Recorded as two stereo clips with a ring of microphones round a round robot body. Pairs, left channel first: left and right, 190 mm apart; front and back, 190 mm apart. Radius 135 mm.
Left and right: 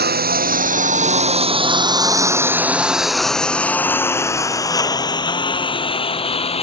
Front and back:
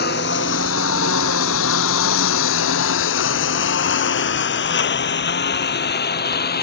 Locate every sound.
0.0 s a lawn mower: 55° right; by 6.6 s 30° left